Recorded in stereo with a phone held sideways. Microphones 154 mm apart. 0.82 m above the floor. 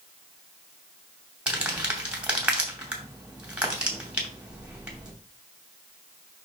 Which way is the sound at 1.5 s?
5° right (ahead or behind).